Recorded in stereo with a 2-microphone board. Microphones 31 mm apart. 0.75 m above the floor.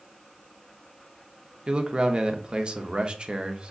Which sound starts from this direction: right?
A man speaking, at 1.7 s.